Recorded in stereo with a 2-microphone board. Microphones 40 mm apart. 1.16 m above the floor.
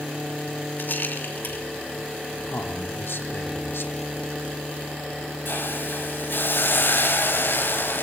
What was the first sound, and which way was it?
A rattle, 60° left (ahead or behind).